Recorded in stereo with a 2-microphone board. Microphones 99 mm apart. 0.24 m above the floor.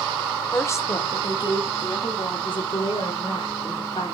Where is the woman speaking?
25° left (ahead or behind), 1.1 m; by 4.1 s 70° left (ahead or behind), 2.5 m.